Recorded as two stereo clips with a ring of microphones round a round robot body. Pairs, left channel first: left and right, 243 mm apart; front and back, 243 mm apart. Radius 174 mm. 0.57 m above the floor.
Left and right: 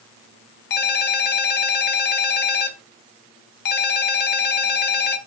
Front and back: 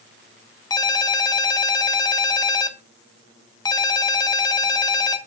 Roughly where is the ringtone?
Left.